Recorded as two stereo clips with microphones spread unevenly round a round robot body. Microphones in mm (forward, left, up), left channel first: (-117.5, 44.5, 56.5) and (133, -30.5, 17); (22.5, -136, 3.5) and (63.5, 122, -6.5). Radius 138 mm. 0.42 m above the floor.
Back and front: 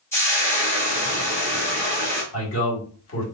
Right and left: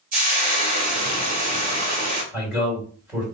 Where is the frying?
75° left, 1.5 m.